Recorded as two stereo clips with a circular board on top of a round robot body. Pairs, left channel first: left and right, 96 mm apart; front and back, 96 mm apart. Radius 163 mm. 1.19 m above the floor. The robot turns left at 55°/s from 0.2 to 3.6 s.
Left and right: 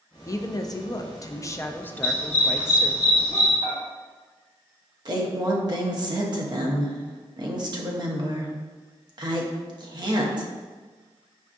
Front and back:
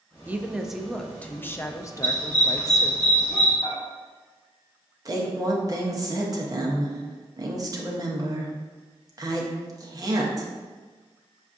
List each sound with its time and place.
0.3 s a woman speaking: 120° left, 0.5 m; by 3.0 s 30° right, 0.5 m
2.0 s a dog barking: 110° left, 1.0 m; by 3.5 s 30° left, 1.0 m
3.6 s dishes clattering: 30° right, 1.1 m
5.0 s a woman speaking: 130° right, 0.8 m